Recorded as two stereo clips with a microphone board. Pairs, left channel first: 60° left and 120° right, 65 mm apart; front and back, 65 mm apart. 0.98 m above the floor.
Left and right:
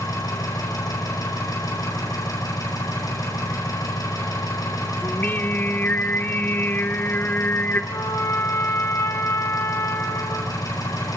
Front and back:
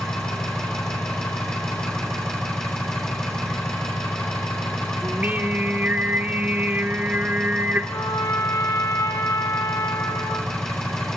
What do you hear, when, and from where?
0.0 s an engine running: 80° left, 7.5 m
5.0 s singing: 115° left, 1.1 m
7.9 s a trumpet: 30° left, 2.5 m